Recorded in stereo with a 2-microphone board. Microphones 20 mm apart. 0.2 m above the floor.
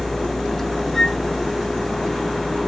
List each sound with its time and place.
0.9 s a flute: 30° left (ahead or behind), 3 m